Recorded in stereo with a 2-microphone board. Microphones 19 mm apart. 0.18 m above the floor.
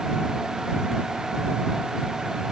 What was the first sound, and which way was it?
Only background noise.